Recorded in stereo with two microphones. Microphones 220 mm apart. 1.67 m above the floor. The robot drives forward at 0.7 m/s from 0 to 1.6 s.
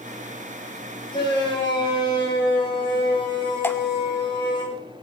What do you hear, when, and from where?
1.1 s a shout: 20° left (ahead or behind), 8.5 m
3.6 s dripping: 10° left (ahead or behind), 1.1 m